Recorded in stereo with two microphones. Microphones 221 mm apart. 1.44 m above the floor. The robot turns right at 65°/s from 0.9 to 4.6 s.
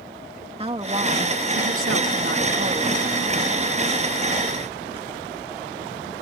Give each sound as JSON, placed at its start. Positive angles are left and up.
{"t": 0.6, "sound": "a woman speaking", "azimuth_deg": -155}